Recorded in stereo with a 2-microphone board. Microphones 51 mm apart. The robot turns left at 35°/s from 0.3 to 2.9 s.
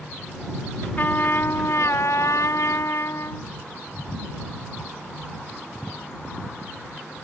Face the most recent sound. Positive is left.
turn(degrees=70)